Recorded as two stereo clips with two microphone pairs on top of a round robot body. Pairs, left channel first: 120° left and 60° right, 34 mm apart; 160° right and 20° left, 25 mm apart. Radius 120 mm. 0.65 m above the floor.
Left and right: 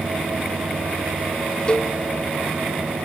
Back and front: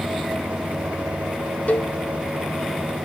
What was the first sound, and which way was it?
A cowbell, straight behind.